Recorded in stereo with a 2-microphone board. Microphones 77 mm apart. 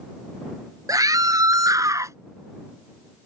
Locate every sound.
0.9 s a scream: 55° right (ahead or behind); by 2.2 s 45° right (ahead or behind)